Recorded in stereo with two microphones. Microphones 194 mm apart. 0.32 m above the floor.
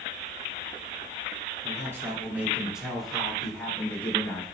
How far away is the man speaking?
About 4 m.